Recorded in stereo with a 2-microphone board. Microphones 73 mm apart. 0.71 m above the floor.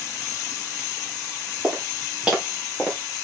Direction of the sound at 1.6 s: 15° right (ahead or behind).